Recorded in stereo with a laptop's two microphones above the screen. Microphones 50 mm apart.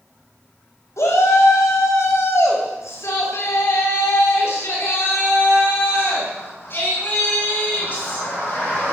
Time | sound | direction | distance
1.0 | a shout | 85° left | 7 m